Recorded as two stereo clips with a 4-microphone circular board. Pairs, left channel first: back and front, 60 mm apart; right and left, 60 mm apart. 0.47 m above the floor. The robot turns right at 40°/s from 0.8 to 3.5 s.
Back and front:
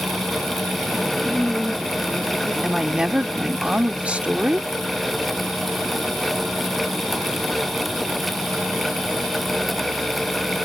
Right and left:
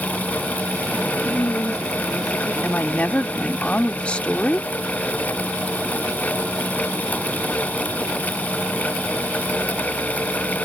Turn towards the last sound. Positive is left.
turn(degrees=-45)